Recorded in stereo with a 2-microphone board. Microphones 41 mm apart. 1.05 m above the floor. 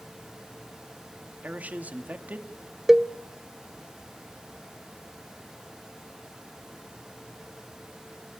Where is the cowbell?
10° right (ahead or behind), 0.5 m.